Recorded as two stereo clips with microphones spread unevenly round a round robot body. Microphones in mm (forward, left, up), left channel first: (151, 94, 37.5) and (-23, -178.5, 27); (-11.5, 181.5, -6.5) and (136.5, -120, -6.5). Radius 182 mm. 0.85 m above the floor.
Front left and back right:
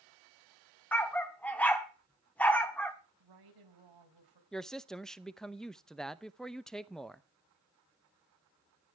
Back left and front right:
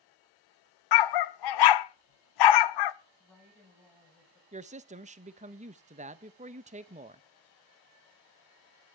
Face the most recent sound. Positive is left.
turn(degrees=-35)